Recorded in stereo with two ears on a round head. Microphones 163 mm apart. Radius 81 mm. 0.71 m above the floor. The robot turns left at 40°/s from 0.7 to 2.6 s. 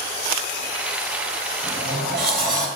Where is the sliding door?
95° right, 4 m; by 2.7 s 130° right, 4 m.